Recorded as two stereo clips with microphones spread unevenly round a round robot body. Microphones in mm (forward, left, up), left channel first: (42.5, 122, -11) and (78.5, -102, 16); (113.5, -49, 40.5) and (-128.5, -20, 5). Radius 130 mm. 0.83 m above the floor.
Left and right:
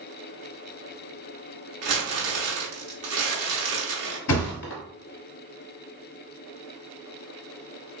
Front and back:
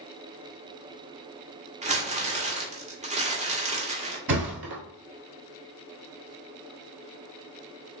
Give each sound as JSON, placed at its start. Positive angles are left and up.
{"t": 1.8, "sound": "crumpling", "azimuth_deg": -120, "distance_m": 1.0}
{"t": 4.3, "sound": "a thud", "azimuth_deg": 130, "distance_m": 1.2}